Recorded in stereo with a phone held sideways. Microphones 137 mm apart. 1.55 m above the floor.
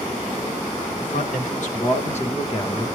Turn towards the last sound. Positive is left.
turn(degrees=25)  # may be behind; listen again after turning